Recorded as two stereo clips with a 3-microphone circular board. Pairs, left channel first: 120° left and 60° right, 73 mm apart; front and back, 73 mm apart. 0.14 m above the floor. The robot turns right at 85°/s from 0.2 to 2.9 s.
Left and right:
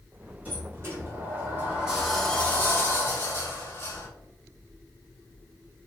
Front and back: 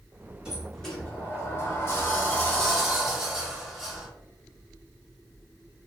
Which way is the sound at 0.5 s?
110° right.